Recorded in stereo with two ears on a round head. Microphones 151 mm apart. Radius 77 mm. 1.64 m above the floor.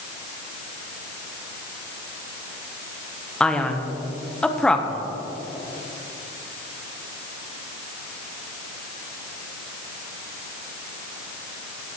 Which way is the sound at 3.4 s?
5° left (ahead or behind).